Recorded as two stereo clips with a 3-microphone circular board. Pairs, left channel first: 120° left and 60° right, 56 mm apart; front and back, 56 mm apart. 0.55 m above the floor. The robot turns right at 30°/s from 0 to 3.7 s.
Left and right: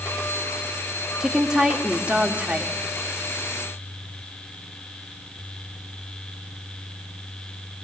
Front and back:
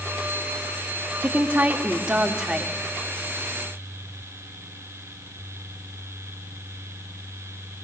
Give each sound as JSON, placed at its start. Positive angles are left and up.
{"t": 1.2, "sound": "a woman speaking", "azimuth_deg": -145, "distance_m": 1.5}